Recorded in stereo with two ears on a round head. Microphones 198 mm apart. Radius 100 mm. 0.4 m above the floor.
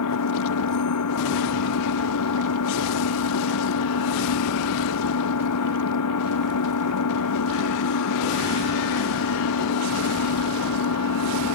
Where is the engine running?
85° left.